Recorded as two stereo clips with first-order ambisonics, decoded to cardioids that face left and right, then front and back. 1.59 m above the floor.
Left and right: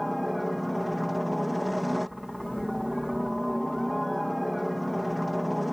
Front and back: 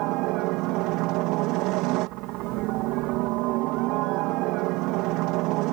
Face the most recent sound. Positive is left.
turn(degrees=175)